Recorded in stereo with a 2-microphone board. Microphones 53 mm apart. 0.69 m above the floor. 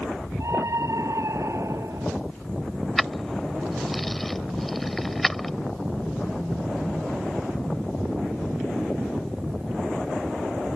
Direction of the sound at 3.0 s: 5° left (ahead or behind).